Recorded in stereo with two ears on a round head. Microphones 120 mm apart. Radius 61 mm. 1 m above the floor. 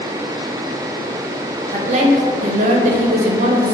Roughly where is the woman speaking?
Right.